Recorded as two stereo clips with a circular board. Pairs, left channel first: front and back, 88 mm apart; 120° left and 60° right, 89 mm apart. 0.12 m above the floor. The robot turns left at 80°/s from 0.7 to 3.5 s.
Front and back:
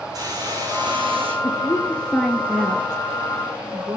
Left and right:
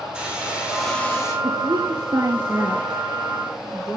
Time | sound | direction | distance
0.1 | a hiss | 135° right | 8 m
1.4 | a woman speaking | 25° right | 2.5 m